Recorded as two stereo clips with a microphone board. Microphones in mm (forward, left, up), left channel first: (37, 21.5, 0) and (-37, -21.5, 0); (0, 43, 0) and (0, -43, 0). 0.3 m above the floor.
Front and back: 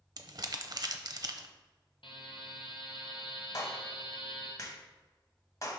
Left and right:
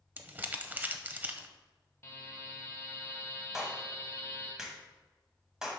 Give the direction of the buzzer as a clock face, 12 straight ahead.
11 o'clock.